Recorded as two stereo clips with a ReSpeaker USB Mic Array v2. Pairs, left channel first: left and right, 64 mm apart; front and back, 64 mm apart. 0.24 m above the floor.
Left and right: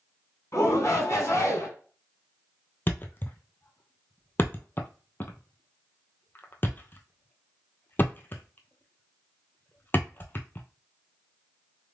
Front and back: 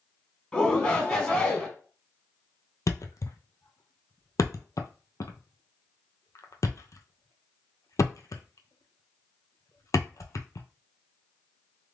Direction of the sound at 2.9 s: 35° left.